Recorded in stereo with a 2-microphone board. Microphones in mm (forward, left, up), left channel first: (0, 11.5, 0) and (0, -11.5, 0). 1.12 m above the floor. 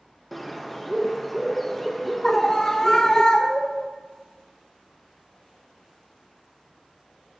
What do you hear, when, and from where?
0.3 s a bird: 5° left (ahead or behind), 0.8 m
2.2 s a scream: 25° left (ahead or behind), 0.6 m